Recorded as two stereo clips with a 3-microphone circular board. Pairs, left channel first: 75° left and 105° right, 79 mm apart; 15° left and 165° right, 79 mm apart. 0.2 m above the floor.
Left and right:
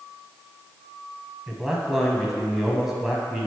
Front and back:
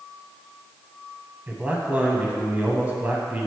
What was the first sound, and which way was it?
A man speaking, straight behind.